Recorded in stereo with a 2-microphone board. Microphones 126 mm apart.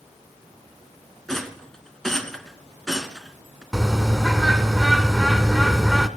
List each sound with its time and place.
1.3 s a rattle: 5° left (ahead or behind), 1.1 m
3.7 s a bird: centre (ahead or behind), 0.8 m